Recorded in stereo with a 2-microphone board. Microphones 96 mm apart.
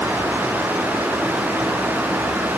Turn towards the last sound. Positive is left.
No sound to turn to.